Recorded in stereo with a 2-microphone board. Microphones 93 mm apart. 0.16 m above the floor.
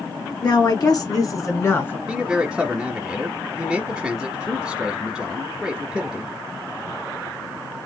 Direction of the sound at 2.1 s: 10° right (ahead or behind).